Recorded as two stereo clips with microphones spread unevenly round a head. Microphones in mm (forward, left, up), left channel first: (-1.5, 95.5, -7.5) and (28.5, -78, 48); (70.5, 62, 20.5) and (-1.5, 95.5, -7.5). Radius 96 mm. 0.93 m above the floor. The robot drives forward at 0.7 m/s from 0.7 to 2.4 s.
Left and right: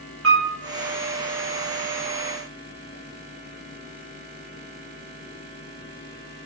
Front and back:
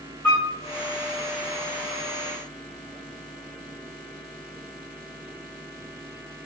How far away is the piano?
About 1.4 m.